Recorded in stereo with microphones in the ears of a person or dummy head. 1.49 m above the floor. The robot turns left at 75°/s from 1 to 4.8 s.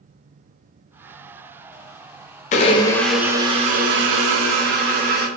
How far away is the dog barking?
No dog barking in this recording.